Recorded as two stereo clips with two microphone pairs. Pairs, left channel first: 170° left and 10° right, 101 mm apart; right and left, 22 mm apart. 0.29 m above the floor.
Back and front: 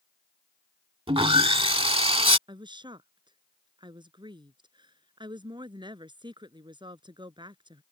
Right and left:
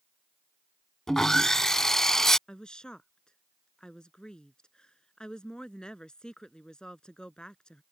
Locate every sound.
1.1 s sawing: 30° right
2.5 s a woman speaking: 45° right